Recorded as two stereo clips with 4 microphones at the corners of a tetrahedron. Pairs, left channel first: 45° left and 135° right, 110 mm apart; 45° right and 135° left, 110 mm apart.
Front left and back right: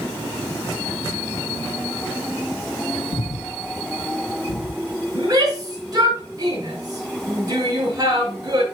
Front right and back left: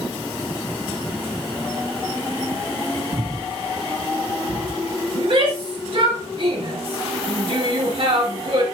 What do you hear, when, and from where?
3.1 s breathing: 80° left, 0.6 m
5.2 s a shout: 170° left, 4 m